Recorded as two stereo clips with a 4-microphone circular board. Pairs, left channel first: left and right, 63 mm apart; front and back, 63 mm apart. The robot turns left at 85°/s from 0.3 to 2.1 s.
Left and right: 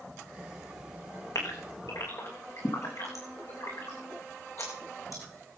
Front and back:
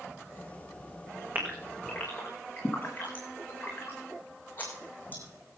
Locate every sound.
1.4 s a gasp: 125° left, 5 m; by 5.2 s 60° left, 5 m